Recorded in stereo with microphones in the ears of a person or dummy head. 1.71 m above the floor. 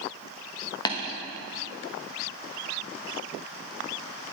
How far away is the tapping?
About 1.3 m.